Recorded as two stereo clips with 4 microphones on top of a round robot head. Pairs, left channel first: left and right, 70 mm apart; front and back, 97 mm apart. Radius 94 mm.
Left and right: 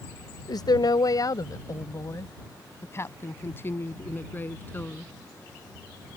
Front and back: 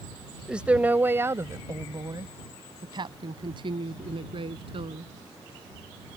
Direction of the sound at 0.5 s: 100° left.